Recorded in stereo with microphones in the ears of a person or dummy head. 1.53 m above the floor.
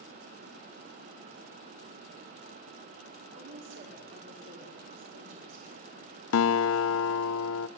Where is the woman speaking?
70° right (ahead or behind), 5 m.